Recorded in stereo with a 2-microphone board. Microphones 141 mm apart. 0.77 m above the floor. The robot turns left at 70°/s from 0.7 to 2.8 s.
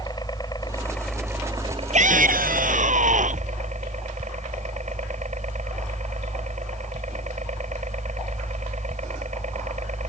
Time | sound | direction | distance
0.0 | a helicopter | 30° left | ?
1.9 | a shout | 55° right | ?